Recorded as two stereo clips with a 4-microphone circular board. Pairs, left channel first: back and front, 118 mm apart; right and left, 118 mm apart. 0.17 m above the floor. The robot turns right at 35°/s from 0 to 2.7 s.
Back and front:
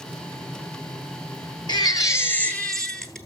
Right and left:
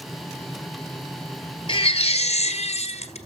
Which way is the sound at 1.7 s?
130° right.